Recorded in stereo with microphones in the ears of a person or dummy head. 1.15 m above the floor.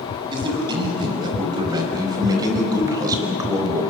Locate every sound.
0.3 s a man speaking: 30° right (ahead or behind), 6.5 m; by 3.9 s 20° right (ahead or behind), 3.5 m